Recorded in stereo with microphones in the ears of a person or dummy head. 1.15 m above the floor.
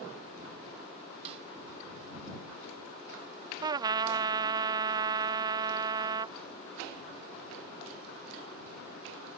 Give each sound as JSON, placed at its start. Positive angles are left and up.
{"t": 1.2, "sound": "a snare drum", "side_deg": -35}
{"t": 3.6, "sound": "a trumpet", "side_deg": -25}